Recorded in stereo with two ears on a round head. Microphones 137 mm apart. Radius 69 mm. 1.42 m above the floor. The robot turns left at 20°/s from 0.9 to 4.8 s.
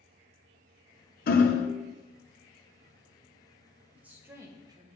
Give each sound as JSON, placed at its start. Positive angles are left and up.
{"t": 1.3, "sound": "hammering", "side_deg": 60, "distance_m": 0.6}
{"t": 4.0, "sound": "a woman speaking", "side_deg": -10, "distance_m": 1.1}